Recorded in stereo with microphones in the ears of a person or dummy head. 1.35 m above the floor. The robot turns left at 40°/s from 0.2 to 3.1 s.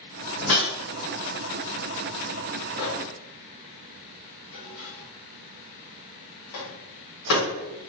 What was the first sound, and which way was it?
A whoosh, 50° left (ahead or behind).